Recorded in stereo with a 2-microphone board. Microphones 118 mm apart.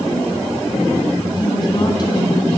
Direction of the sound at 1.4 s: 40° left (ahead or behind).